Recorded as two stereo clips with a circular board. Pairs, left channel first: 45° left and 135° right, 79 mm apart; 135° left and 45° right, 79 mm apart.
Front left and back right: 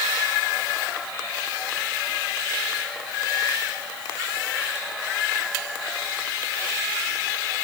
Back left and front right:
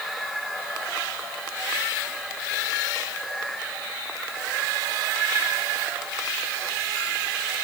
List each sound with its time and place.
Only background noise.